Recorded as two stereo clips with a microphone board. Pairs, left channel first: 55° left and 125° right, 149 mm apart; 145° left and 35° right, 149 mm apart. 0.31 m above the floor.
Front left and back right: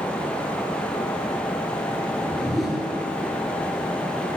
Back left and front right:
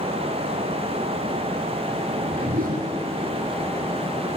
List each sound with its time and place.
2.1 s a whoosh: 35° right, 0.9 m